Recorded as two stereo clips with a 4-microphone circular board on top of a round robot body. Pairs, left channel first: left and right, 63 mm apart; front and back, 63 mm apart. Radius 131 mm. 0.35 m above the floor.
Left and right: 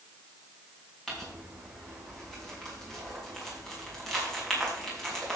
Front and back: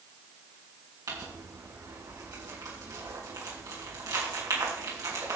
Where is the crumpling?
170° left, 5 m.